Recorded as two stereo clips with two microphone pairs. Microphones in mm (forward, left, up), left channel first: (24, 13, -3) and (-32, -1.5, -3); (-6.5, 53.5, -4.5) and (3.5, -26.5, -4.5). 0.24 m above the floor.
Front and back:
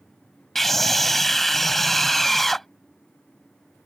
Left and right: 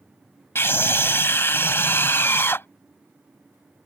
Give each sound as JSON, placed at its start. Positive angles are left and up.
{"t": 0.6, "sound": "a scream", "azimuth_deg": 95}